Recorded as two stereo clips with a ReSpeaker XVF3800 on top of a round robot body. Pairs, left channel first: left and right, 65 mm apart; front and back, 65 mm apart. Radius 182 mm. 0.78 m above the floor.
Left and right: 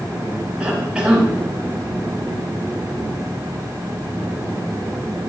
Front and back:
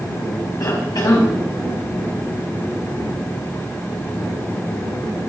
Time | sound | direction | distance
0.6 | a cough | 15° right | 7 m